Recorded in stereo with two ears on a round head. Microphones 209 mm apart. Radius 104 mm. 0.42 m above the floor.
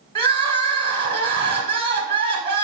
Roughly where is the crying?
Right.